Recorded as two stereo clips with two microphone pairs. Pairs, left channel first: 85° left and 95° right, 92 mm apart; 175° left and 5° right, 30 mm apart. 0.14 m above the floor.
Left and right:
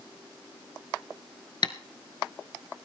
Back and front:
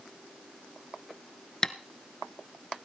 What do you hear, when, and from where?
1.6 s tapping: 110° left, 0.9 m